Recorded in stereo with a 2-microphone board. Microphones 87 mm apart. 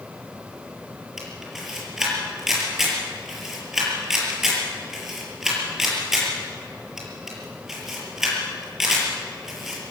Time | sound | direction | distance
1.2 | a camera shutter | 5° right (ahead or behind) | 6 m